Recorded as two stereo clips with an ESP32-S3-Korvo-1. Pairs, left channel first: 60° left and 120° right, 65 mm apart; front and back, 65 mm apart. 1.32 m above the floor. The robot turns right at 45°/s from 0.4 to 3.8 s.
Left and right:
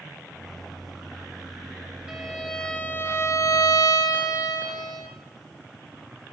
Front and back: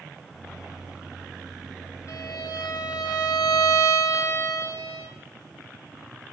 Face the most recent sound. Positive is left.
turn(degrees=40)